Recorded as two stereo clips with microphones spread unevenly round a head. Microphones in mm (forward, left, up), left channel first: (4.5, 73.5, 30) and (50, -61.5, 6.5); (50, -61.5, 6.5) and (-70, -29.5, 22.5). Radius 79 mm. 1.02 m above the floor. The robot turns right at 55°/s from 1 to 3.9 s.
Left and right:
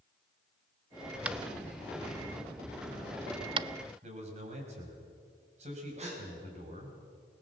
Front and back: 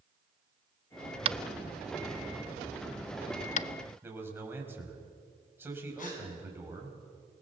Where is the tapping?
150° right, 0.5 m; by 3.7 s 15° right, 0.5 m.